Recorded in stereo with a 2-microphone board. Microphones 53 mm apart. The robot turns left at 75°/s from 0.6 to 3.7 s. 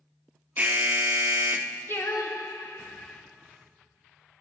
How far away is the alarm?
About 0.7 m.